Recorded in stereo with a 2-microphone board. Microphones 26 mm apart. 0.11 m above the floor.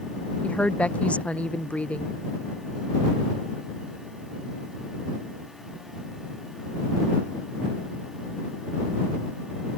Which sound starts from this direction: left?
A woman speaking, at 0.4 s.